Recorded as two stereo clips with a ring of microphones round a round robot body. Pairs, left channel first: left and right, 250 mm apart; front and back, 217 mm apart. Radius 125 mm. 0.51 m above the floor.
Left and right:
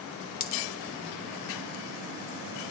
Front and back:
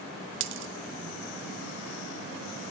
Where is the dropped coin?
145° left, 0.6 m.